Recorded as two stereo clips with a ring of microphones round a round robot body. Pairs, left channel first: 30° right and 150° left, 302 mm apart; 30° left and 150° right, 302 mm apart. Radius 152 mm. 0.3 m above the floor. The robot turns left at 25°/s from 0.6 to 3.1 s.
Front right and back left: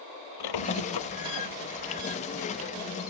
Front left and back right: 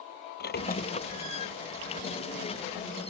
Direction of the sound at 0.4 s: 30° right.